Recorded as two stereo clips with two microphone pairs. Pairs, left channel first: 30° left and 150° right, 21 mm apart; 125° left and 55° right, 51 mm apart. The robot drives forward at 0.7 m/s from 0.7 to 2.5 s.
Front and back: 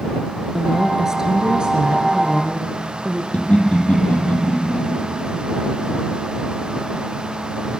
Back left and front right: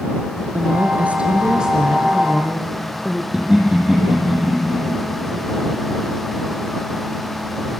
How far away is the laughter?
About 4 m.